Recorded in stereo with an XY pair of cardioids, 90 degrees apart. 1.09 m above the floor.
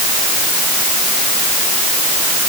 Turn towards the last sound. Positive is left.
No sound to turn to.